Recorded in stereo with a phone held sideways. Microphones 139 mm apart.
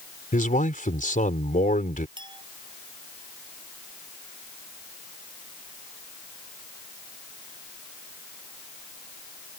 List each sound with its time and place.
0.3 s a man speaking: 75° left (ahead or behind)
2.2 s a clink: 35° right (ahead or behind)